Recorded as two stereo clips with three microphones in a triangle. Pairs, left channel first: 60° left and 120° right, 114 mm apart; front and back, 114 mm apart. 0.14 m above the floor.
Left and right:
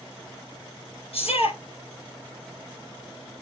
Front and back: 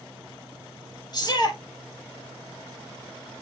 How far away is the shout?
About 4 m.